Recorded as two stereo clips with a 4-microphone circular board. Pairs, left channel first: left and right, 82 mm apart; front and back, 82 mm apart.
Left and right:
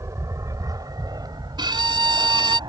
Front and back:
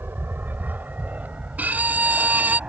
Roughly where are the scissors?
No scissors in this recording.